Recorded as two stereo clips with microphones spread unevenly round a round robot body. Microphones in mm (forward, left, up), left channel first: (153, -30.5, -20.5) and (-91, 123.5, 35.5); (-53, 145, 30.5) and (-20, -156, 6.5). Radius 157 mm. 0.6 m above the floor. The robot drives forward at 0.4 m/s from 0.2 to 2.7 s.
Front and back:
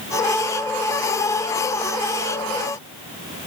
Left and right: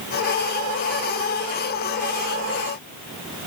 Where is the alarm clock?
No alarm clock in this recording.